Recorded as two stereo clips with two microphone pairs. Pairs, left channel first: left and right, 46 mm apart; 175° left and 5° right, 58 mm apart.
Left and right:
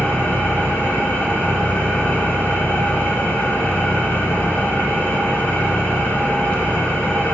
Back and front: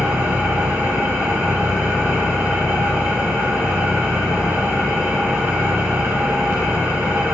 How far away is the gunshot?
No gunshot in this recording.